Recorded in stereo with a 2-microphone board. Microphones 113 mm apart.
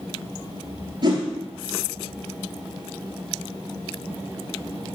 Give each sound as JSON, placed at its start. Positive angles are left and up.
{"t": 1.0, "sound": "a whoosh", "side_deg": -40, "distance_m": 1.3}